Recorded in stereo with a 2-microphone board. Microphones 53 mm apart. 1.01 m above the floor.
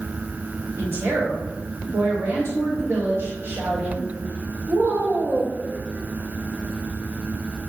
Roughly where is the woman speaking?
Right.